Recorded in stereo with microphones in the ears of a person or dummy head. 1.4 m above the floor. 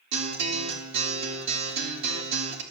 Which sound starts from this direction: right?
A guitar, at 0.1 s.